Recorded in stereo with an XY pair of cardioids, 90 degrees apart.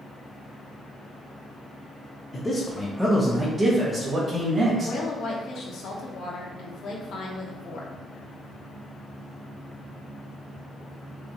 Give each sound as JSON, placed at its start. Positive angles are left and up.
{"t": 2.3, "sound": "a man speaking", "azimuth_deg": 30, "distance_m": 1.1}
{"t": 4.8, "sound": "a woman speaking", "azimuth_deg": 70, "distance_m": 1.1}